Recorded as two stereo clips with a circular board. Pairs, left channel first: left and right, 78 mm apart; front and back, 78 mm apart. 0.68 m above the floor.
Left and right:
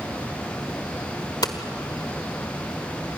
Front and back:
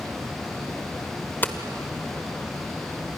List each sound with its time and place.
1.4 s hammering: 65° left, 1.6 m